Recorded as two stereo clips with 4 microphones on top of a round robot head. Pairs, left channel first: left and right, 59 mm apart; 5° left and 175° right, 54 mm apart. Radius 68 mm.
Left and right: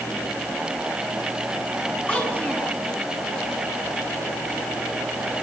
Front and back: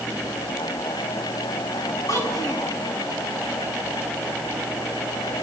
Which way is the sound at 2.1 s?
25° left.